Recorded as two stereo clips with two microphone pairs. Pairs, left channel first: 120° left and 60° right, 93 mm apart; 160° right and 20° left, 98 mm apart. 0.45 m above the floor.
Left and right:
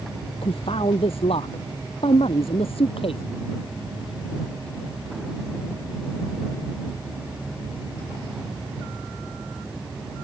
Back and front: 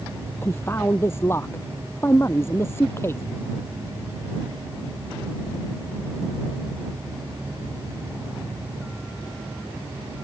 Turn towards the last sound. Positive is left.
turn(degrees=135)